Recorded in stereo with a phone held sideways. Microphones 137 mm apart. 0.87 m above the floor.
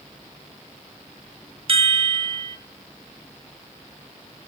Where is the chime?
45° right (ahead or behind), 0.5 m.